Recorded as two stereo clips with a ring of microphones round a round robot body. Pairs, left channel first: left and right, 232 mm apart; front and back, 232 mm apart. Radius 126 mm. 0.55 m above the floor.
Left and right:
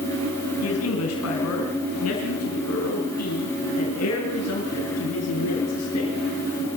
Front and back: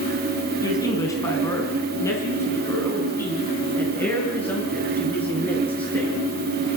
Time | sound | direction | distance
0.6 | a man speaking | 75° left | 4.5 m